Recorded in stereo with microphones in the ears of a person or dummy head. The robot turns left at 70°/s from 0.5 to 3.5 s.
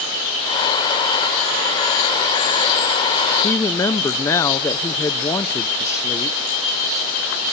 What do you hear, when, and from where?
3.4 s a woman speaking: 15° left (ahead or behind), 0.5 m